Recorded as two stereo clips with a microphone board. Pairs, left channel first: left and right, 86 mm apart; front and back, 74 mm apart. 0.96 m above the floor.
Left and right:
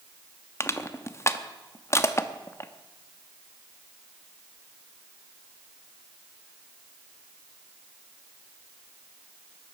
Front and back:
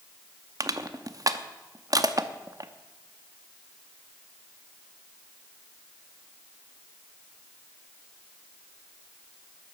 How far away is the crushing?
About 0.7 m.